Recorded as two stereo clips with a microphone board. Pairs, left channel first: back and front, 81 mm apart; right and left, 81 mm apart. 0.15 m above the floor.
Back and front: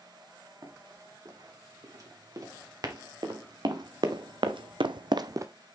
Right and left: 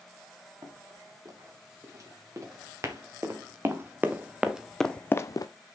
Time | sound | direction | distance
0.6 | running footsteps | 50° left | 4 m